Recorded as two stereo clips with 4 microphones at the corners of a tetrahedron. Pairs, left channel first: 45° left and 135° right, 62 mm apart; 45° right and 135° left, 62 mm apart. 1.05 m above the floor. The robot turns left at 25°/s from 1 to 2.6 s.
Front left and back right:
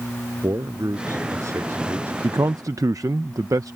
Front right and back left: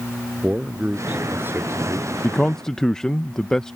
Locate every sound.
0.4 s a man speaking: 160° right; by 2.1 s 170° left
2.2 s a man speaking: 115° right; by 3.8 s 125° right